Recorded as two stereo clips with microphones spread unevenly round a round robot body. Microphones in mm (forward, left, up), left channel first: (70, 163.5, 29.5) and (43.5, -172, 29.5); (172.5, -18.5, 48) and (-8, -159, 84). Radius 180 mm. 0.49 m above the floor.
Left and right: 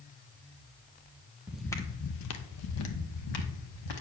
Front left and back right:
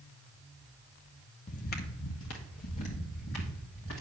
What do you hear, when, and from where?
1.5 s footsteps: 15° right, 0.5 m; by 4.0 s 95° left, 1.4 m